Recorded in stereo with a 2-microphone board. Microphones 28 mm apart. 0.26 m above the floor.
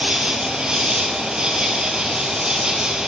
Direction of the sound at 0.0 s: 30° right (ahead or behind).